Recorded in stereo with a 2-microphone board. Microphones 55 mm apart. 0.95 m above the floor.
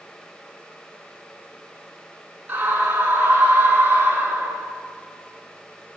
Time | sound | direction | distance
2.5 | a scream | 35° right (ahead or behind) | 8.5 m